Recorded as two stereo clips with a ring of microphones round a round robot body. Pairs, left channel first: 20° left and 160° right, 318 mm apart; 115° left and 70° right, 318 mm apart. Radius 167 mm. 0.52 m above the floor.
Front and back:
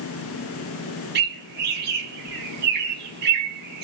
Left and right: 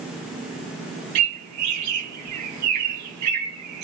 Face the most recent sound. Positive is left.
turn(degrees=-100)